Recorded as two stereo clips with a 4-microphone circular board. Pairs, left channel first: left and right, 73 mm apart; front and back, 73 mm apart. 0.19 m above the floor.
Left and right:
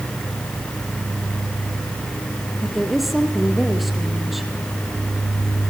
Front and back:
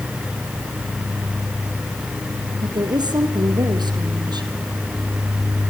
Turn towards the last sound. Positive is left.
turn(degrees=180)